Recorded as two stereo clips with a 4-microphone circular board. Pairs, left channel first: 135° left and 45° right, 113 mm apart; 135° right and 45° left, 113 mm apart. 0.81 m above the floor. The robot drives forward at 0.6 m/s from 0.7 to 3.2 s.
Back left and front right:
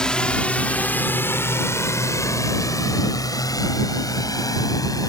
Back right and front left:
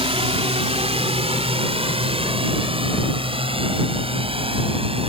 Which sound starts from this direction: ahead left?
A drone, at 0.0 s.